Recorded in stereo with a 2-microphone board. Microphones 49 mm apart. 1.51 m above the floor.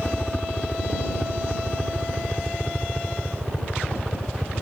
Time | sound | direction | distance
0.0 | a helicopter | 25° left (ahead or behind) | ?